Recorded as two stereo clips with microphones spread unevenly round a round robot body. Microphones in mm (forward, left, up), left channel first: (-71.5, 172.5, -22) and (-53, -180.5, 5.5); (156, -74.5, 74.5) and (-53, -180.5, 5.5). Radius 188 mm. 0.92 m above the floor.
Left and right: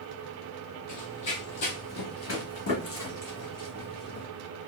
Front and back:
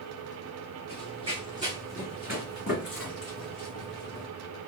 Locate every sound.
0.9 s running footsteps: 105° left, 1.2 m; by 4.2 s 40° left, 2.5 m